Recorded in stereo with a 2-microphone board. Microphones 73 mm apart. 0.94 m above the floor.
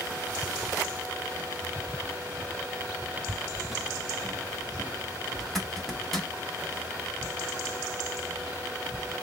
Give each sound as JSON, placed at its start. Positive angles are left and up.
{"t": 3.2, "sound": "footsteps", "side_deg": -20, "distance_m": 1.0}
{"t": 5.4, "sound": "a zipper", "side_deg": 5, "distance_m": 1.1}